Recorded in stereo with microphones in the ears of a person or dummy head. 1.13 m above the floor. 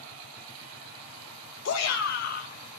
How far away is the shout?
About 0.7 m.